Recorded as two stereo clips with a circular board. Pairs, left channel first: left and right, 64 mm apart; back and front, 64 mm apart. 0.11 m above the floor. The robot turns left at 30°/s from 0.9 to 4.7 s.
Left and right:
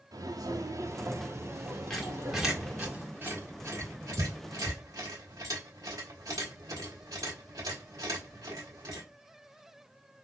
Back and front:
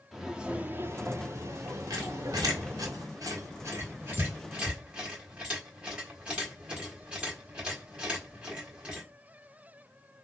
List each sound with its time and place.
0.1 s footsteps: 90° right, 0.7 m; by 2.9 s 60° right, 1.5 m
1.9 s a squeak: 10° left, 1.2 m; by 9.0 s 75° right, 1.2 m